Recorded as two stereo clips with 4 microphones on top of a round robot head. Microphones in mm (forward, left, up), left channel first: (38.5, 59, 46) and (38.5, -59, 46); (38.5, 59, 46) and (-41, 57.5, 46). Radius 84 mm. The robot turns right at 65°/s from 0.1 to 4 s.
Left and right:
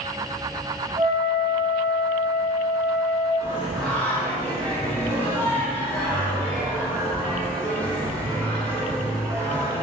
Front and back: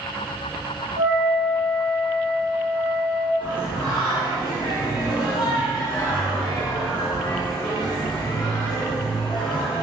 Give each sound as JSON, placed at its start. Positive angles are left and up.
{"t": 1.0, "sound": "a flute", "azimuth_deg": -140, "distance_m": 1.6}
{"t": 3.4, "sound": "singing", "azimuth_deg": -25, "distance_m": 1.1}